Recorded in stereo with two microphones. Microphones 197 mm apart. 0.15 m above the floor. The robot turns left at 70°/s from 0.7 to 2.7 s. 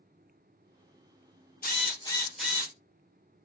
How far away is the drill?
About 1.4 m.